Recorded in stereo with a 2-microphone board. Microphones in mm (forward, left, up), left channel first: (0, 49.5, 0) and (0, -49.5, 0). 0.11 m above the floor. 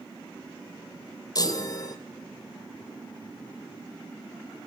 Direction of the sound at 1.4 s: 40° left (ahead or behind).